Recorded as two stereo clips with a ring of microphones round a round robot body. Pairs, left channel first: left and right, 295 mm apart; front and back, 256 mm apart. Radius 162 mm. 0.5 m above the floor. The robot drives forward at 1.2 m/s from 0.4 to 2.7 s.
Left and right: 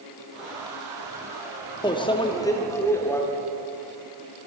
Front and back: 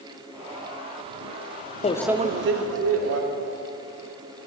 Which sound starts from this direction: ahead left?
A microwave, at 1.8 s.